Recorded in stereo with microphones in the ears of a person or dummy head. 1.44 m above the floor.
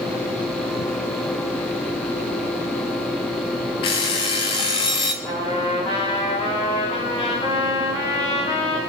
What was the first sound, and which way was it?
An alarm clock, 25° left (ahead or behind).